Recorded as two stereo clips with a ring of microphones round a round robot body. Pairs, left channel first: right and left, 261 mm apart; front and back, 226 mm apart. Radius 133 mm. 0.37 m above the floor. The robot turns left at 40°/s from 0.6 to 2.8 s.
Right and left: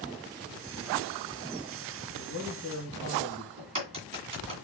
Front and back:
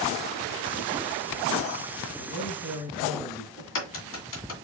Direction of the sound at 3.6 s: 20° left.